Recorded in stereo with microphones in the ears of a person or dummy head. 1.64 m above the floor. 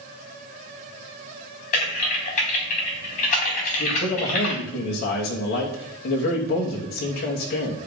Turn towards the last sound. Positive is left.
turn(degrees=65)  # may be behind; listen again after turning